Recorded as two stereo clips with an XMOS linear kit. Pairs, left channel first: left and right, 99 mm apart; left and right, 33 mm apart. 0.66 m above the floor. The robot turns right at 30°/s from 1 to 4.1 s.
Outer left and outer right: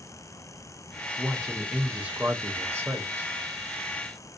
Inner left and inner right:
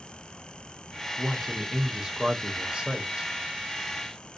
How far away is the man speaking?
About 0.6 m.